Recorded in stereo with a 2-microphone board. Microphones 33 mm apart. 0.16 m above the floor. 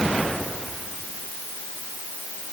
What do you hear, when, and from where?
Only background noise.